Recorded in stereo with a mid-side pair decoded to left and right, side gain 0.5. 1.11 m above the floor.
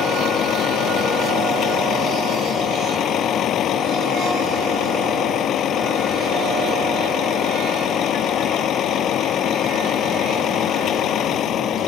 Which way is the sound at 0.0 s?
60° left.